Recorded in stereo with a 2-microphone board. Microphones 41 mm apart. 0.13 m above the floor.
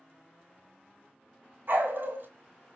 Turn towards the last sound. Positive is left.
turn(degrees=-60)  # may be behind; listen again after turning